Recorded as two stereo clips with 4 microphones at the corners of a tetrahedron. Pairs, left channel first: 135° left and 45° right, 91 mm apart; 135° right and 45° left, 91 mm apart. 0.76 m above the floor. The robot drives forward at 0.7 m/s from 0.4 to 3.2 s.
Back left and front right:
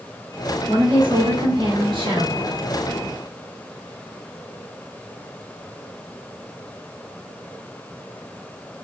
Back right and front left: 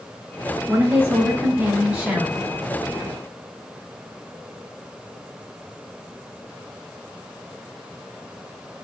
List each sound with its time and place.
0.7 s a woman speaking: 15° right, 3 m; by 2.5 s 25° right, 2 m